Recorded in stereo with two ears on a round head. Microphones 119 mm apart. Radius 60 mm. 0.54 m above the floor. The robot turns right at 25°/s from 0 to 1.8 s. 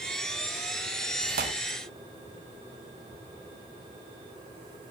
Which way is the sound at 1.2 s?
80° right.